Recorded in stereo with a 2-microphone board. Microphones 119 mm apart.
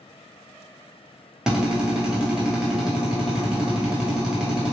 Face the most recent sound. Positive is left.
turn(degrees=-5)  # may be behind; listen again after turning